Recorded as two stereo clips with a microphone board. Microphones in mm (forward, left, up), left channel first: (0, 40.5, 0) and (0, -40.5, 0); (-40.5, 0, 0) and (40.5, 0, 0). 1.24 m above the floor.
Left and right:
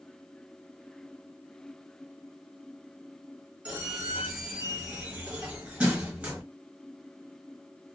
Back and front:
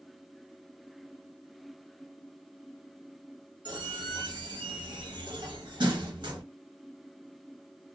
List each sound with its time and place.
3.6 s a squeak: 10° right, 1.3 m